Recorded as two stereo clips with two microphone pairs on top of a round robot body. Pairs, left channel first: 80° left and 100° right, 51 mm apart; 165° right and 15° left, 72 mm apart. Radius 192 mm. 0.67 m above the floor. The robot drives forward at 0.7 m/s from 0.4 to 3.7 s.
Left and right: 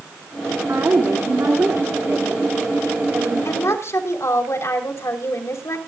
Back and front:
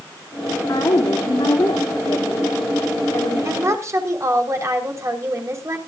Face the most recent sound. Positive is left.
turn(degrees=60)